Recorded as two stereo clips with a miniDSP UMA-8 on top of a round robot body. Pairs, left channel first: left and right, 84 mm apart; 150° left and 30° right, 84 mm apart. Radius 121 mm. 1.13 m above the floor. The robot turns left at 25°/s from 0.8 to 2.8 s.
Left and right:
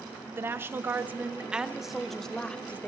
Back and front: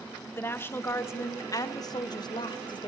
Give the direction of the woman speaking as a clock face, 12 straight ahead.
5 o'clock.